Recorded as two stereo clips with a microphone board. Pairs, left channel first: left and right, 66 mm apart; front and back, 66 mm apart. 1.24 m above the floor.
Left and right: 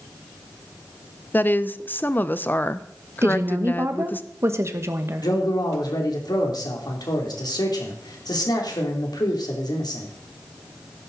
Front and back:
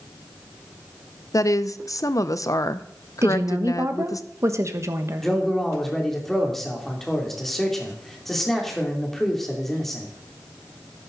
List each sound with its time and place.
1.3 s a woman speaking: 30° left, 0.7 m
3.2 s a woman speaking: 135° right, 1.3 m
5.2 s a man speaking: 85° left, 3 m